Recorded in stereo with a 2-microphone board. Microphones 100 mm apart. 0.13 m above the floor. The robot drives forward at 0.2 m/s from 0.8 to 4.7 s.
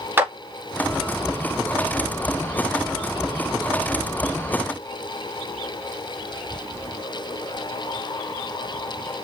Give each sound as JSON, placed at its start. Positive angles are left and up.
{"t": 0.2, "sound": "a clap", "side_deg": -20, "distance_m": 1.7}